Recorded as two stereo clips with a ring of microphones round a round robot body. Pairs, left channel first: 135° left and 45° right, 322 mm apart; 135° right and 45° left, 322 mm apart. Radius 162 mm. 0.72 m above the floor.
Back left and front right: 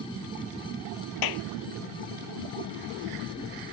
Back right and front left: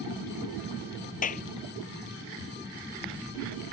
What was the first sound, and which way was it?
A clap, 160° left.